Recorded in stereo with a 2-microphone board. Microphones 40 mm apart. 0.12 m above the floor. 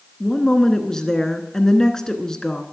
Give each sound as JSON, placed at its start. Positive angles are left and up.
{"t": 0.2, "sound": "a woman speaking", "side_deg": 15, "distance_m": 1.1}